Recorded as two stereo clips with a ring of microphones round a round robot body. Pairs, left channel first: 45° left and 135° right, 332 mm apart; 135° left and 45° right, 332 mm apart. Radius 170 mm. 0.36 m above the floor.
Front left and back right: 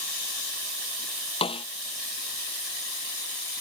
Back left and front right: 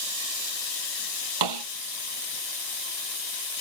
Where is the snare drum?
30° right.